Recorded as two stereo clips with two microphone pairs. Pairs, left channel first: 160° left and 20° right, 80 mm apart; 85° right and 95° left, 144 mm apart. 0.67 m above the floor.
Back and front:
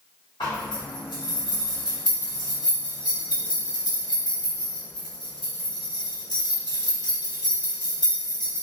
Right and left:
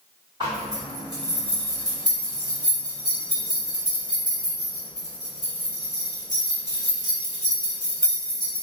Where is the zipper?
155° left, 1.4 m.